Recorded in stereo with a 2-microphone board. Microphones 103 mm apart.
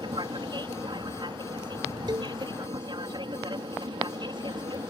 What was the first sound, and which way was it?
An aircraft, 50° right (ahead or behind).